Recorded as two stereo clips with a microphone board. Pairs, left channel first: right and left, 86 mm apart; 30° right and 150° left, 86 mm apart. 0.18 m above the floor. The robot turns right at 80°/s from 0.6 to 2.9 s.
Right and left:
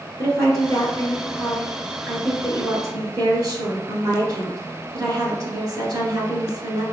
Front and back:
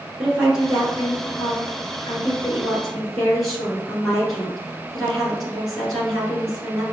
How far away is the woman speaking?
About 1.9 m.